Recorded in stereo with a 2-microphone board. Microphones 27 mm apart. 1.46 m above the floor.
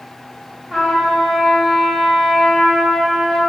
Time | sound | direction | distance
0.7 | a trumpet | 15° left (ahead or behind) | 0.8 m